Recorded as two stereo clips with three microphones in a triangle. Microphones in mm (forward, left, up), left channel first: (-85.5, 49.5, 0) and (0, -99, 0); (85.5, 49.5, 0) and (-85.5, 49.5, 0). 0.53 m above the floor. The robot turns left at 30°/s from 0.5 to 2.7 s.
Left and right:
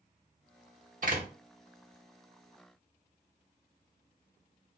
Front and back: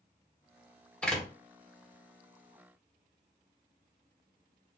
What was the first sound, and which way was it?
A door slam, 80° right.